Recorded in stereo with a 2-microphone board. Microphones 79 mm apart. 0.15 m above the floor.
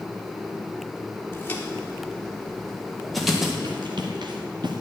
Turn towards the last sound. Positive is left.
turn(degrees=-65)  # may be behind; listen again after turning